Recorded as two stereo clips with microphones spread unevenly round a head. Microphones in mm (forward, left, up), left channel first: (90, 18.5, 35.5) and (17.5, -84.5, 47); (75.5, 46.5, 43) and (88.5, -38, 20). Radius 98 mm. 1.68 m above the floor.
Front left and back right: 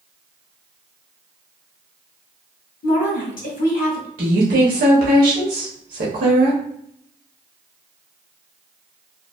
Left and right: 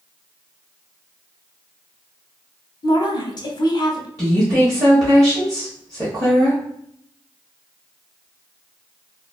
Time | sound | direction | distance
2.8 | a woman speaking | 70° left | 0.9 m
4.2 | a woman speaking | 150° right | 0.8 m